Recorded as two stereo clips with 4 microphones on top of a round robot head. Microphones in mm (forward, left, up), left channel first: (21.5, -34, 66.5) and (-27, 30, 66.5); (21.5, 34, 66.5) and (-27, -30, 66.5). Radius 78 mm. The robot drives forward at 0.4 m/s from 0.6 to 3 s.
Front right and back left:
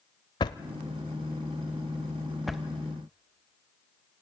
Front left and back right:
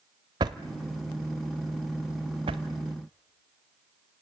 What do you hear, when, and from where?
0.4 s a drawer: 85° right, 0.6 m; by 2.6 s 145° right, 1.0 m